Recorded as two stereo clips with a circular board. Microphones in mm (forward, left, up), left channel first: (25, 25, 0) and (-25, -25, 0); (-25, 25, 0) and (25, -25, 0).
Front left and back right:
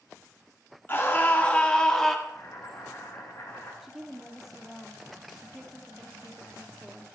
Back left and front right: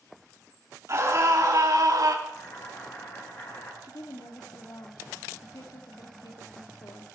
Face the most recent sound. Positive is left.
turn(degrees=140)